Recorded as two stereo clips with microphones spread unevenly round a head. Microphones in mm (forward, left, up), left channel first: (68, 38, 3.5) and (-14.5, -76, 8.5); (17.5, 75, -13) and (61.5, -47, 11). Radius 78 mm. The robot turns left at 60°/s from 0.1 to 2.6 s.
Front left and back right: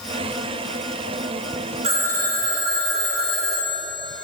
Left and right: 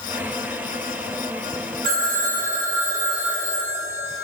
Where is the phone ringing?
80° right, 1.7 m; by 4.2 s 125° right, 1.7 m.